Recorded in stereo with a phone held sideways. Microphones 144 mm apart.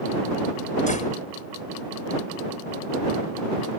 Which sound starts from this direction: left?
A door slam, at 0.9 s.